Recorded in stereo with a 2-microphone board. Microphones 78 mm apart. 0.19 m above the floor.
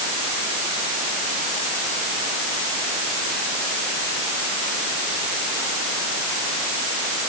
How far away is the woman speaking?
No woman speaking in this recording.